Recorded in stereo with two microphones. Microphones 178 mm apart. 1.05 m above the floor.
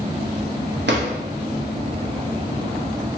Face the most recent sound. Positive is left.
turn(degrees=-85)